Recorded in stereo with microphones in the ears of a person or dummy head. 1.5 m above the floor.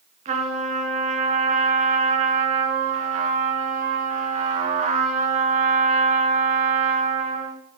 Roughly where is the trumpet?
Right.